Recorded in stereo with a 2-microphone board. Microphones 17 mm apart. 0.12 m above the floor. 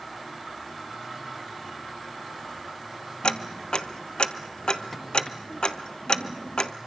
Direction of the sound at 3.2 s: 55° left (ahead or behind).